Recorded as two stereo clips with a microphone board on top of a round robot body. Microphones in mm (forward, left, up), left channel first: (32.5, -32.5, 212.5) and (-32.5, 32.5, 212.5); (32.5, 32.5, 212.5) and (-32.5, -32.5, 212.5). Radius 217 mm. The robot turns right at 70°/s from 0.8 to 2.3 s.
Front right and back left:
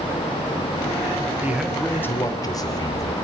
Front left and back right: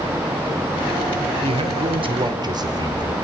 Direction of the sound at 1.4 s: 155° right.